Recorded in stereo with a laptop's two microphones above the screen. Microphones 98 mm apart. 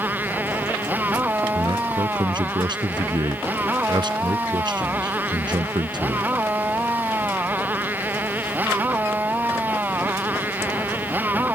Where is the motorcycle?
20° right (ahead or behind).